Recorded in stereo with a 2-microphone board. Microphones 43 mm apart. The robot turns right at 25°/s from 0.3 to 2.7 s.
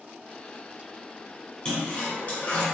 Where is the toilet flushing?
25° left (ahead or behind), 1.3 m; by 2.6 s 50° left (ahead or behind), 1.3 m.